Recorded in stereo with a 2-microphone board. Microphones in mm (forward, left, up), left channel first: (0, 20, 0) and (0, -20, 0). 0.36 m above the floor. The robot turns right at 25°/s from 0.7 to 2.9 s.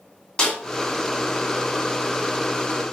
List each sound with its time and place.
0.4 s a snare drum: 20° left (ahead or behind), 4 m